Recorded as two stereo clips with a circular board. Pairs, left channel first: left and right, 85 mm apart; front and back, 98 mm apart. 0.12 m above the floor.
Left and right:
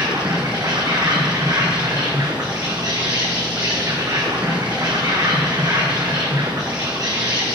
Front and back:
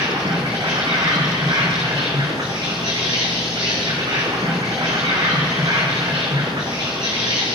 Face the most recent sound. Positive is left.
turn(degrees=-135)